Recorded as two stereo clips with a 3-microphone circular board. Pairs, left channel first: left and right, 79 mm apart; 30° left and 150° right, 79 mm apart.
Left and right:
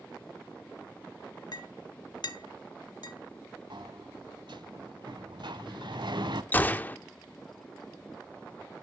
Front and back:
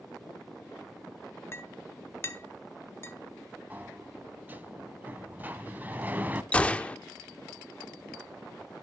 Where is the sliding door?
80° right, 0.6 m.